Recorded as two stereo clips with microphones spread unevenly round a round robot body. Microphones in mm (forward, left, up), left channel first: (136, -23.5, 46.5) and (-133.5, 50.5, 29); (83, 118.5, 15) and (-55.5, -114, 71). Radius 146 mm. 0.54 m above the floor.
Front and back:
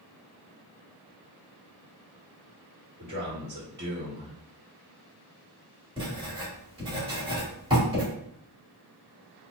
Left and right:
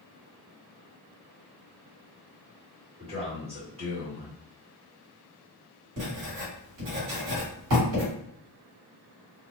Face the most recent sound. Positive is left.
turn(degrees=-130)